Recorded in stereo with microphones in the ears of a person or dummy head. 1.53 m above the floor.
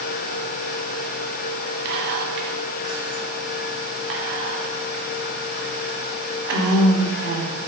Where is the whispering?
60° right (ahead or behind), 0.7 m.